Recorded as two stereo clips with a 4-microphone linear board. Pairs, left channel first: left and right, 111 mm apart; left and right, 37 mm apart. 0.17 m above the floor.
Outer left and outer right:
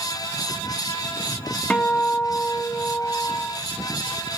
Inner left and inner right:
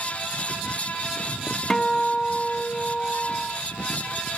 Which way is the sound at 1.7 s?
10° left (ahead or behind).